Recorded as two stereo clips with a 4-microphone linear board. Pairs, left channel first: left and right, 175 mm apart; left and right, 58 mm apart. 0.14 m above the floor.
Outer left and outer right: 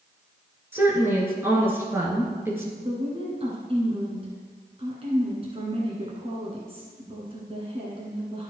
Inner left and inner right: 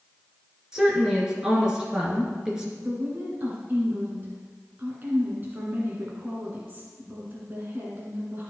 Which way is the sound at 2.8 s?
35° right (ahead or behind).